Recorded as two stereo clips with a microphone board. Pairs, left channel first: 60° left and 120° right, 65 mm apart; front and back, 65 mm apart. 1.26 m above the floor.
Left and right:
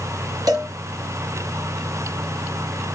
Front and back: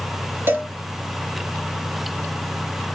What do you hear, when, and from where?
0.5 s a cowbell: 125° right, 4 m